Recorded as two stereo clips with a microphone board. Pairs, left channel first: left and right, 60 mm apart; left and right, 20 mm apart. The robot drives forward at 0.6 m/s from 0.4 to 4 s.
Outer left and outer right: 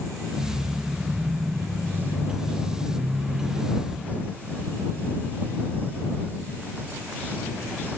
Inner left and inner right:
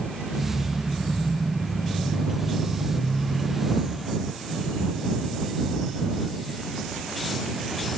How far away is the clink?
No clink in this recording.